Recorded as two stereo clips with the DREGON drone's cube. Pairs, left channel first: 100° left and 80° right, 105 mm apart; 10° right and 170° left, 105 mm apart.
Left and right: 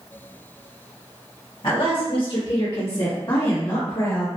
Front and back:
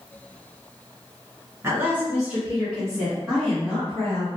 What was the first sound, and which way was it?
A woman speaking, 110° left.